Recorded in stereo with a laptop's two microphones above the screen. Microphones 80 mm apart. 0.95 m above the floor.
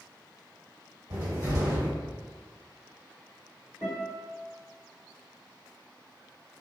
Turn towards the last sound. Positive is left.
turn(degrees=-35)  # may be behind; listen again after turning